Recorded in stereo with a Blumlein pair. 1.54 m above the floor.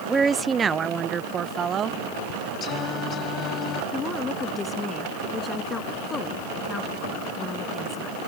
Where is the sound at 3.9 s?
15° left.